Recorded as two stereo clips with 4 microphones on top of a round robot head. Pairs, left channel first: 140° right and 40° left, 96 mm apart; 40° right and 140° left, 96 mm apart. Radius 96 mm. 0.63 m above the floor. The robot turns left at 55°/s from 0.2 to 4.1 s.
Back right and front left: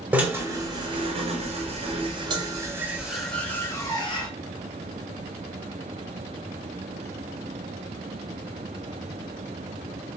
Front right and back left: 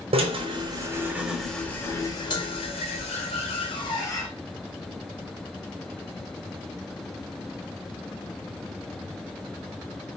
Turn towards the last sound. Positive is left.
turn(degrees=-100)